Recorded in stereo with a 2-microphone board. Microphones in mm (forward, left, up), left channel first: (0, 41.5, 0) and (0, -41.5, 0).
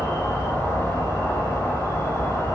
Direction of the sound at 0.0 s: 40° left (ahead or behind).